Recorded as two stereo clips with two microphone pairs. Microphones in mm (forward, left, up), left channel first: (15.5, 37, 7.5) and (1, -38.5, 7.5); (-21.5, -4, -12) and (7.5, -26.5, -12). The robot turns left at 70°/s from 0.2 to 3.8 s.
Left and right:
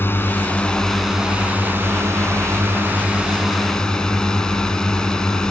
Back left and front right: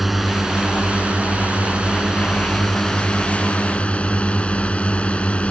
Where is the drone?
45° left; by 5.5 s 150° left.